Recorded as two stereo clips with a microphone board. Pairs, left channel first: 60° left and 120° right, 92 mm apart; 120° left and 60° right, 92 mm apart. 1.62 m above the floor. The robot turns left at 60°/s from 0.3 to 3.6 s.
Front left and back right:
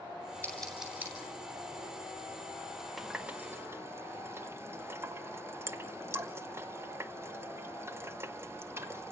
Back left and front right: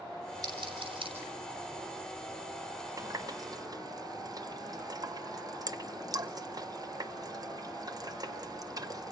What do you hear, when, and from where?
0.4 s scissors: 15° right, 9 m; by 1.1 s 55° right, 9 m
3.0 s a running tap: 30° right, 1.0 m; by 9.1 s 70° right, 1.0 m